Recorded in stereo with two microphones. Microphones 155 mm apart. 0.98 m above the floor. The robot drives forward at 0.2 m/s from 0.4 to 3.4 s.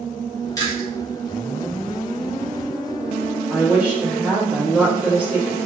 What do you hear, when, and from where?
0.6 s chewing: 20° left (ahead or behind), 1.5 m
3.5 s a woman speaking: 10° right (ahead or behind), 1.7 m